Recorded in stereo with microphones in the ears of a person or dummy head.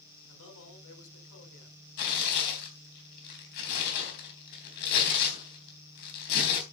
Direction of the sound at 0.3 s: 75° left (ahead or behind).